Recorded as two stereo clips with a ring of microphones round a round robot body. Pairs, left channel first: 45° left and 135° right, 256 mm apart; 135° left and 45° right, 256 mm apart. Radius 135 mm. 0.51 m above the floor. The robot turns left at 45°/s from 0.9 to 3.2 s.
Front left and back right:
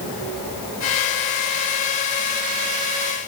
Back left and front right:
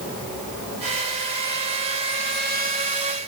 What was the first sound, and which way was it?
Only background noise.